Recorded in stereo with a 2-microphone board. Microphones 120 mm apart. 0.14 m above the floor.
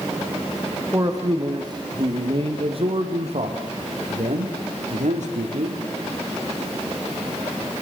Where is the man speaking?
25° right (ahead or behind), 5.5 m; by 5.8 s 80° right, 7.5 m.